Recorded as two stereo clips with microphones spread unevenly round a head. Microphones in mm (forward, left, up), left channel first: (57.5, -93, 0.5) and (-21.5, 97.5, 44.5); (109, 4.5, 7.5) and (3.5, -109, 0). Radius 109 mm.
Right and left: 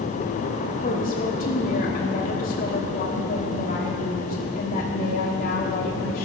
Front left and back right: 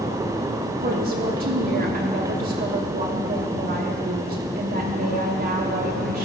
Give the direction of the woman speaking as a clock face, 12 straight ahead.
4 o'clock.